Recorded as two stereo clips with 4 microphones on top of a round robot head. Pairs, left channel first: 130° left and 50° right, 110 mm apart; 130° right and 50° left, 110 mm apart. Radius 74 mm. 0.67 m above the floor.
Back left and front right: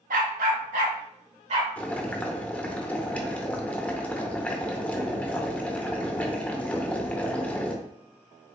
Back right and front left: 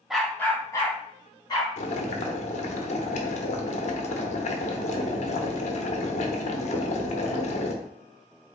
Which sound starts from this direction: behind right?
Boiling, at 1.8 s.